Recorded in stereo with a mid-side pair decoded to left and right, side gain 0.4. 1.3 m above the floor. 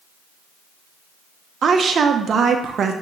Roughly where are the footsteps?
I don't hear footsteps.